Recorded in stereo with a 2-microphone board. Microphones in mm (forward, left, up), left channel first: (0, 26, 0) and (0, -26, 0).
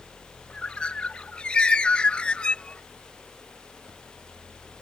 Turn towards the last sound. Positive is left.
turn(degrees=20)  # may be behind; listen again after turning